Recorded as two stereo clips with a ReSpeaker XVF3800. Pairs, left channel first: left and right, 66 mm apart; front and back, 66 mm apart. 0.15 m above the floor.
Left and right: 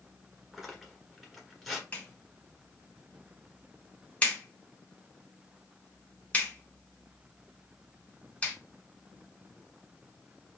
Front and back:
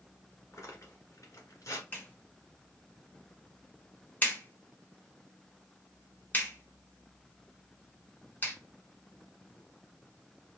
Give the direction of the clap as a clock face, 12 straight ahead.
11 o'clock.